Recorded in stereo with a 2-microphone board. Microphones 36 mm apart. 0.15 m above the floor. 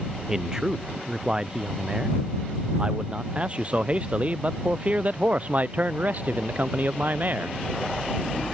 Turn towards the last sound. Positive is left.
turn(degrees=-55)  # may be behind; listen again after turning